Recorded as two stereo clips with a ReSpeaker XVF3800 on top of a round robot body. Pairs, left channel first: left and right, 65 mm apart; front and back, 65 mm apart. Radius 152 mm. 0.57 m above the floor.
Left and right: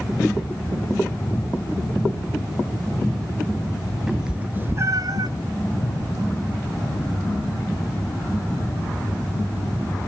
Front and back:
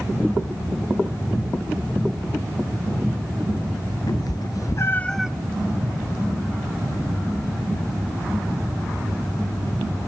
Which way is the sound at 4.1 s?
10° right.